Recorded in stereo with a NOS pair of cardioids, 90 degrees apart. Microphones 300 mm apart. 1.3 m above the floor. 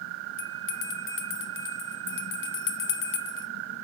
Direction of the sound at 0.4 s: 40° left.